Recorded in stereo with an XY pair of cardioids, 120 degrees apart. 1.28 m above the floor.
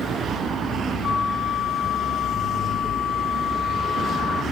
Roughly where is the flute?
Ahead left.